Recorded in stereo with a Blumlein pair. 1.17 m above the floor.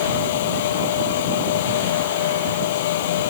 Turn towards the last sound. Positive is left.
turn(degrees=55)